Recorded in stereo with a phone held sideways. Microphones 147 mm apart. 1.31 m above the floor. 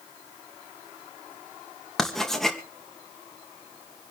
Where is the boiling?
I don't hear boiling.